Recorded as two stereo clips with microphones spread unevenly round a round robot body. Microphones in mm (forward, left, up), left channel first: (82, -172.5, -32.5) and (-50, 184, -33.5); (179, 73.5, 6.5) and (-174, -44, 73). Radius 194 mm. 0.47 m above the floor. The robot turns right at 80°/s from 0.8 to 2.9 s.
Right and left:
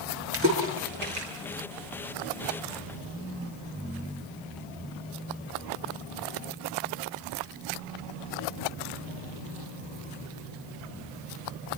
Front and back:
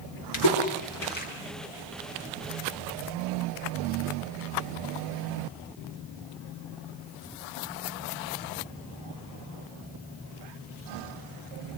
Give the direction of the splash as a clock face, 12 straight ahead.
10 o'clock.